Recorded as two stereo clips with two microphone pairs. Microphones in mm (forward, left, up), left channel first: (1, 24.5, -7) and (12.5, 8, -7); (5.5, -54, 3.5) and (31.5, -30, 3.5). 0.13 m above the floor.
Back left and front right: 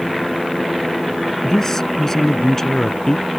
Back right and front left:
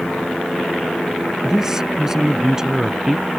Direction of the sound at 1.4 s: 100° left.